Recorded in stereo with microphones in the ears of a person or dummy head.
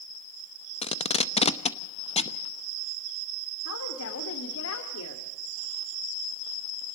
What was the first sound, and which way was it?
Tape being pulled, 35° left (ahead or behind).